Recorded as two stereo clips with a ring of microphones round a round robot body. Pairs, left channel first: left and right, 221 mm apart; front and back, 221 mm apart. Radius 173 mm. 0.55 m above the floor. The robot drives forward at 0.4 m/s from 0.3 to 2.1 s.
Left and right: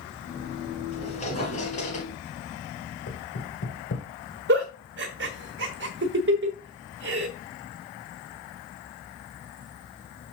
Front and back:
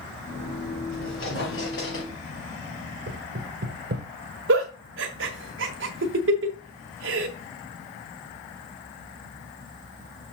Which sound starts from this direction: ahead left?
A squeak, at 0.9 s.